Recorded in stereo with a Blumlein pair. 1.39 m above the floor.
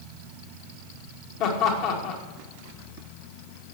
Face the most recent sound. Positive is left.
turn(degrees=40)